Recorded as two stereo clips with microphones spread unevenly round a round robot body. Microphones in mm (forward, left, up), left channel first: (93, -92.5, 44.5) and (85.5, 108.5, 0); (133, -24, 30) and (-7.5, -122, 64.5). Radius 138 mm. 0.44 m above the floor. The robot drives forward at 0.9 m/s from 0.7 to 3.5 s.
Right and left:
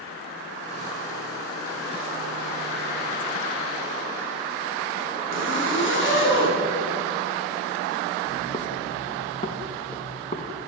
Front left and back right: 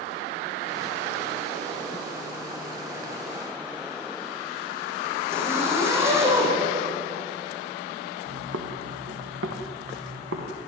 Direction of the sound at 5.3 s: 70° right.